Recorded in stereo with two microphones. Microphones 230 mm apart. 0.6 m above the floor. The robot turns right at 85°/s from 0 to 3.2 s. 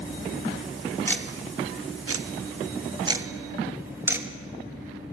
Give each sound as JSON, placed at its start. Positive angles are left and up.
{"t": 1.1, "sound": "ticking", "side_deg": 10, "distance_m": 0.5}